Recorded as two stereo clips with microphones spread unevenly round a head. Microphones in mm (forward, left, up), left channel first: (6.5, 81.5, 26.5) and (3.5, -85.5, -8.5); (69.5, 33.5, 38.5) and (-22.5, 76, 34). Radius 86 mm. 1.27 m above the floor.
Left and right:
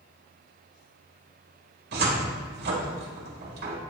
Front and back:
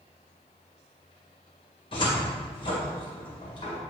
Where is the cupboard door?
70° right, 1.7 m.